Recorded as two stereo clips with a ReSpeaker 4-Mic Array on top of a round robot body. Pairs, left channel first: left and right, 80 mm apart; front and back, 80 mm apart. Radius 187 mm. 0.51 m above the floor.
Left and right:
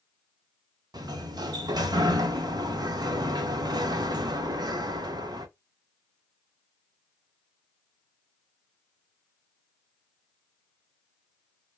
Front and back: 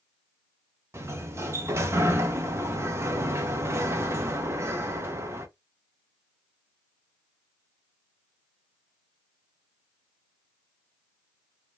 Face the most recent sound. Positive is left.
turn(degrees=-125)